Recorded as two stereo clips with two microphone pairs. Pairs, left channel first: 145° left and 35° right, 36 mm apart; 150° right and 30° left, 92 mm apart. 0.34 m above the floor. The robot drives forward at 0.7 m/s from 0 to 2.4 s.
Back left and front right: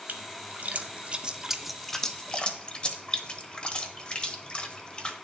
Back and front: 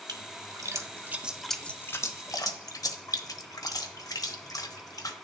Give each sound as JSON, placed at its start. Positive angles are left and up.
{"t": 0.1, "sound": "a splash", "azimuth_deg": -5, "distance_m": 1.2}